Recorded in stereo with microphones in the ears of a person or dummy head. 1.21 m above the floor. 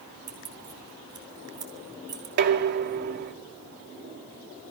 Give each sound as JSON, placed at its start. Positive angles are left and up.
{"t": 0.3, "sound": "keys jangling", "side_deg": -20, "distance_m": 2.5}
{"t": 2.4, "sound": "dishes clattering", "side_deg": -55, "distance_m": 1.8}